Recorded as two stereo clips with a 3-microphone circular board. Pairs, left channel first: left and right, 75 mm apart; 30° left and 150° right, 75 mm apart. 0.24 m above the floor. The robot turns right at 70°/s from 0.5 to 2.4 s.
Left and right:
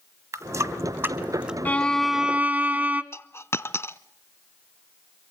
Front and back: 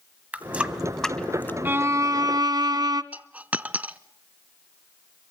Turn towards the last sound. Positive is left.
turn(degrees=140)